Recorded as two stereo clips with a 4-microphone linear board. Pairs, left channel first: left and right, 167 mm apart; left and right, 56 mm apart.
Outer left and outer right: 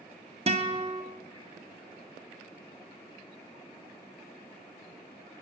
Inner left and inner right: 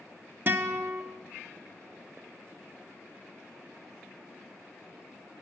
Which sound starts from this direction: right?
A guitar, at 0.5 s.